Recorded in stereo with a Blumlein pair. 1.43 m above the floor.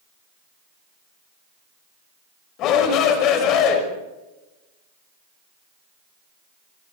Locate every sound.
2.6 s a shout: 35° left, 5.5 m